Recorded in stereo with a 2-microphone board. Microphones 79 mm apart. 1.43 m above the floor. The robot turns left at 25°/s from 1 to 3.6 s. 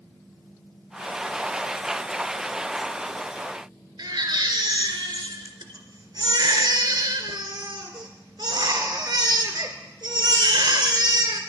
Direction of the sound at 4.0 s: 65° right (ahead or behind).